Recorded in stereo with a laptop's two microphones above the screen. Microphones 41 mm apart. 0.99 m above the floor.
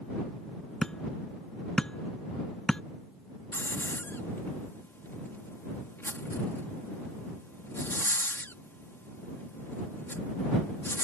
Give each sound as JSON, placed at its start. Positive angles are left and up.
{"t": 0.8, "sound": "hammering", "side_deg": 15}
{"t": 3.5, "sound": "a hiss", "side_deg": 70}